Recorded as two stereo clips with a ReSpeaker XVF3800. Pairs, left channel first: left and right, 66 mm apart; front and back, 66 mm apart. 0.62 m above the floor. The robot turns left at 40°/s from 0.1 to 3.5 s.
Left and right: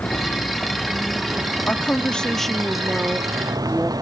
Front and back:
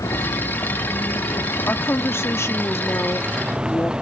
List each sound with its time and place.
0.0 s a vehicle: 25° left; by 4.0 s 105° right
1.7 s a woman speaking: 40° left; by 3.9 s 35° right